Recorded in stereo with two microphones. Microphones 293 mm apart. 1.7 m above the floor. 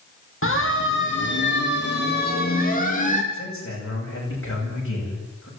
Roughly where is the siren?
Left.